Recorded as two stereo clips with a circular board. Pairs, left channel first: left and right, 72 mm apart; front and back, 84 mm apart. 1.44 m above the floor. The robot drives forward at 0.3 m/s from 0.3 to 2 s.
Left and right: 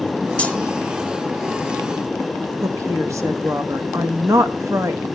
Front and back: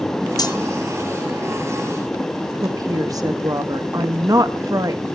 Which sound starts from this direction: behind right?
A woman speaking, at 2.6 s.